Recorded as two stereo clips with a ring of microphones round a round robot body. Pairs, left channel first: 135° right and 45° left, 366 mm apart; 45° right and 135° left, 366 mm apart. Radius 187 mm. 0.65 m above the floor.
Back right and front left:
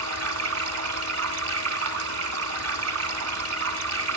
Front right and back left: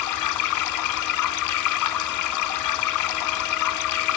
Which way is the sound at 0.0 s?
5° right.